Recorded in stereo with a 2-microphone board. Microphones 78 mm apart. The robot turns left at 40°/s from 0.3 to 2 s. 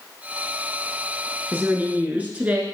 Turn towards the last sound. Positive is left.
turn(degrees=-20)  # may be behind; listen again after turning